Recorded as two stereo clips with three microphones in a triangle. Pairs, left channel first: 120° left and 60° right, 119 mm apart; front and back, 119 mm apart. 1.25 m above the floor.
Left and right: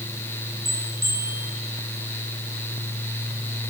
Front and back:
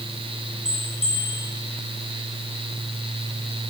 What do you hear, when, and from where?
0.7 s a bell: 5° left, 4 m